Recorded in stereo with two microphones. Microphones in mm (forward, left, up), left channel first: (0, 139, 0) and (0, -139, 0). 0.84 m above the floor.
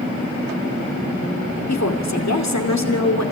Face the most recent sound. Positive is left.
turn(degrees=75)  # may be behind; listen again after turning